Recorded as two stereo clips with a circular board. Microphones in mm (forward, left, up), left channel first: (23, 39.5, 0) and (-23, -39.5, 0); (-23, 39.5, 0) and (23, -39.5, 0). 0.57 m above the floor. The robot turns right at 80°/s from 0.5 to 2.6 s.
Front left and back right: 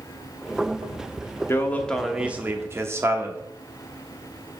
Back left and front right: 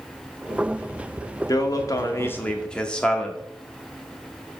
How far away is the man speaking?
About 0.9 m.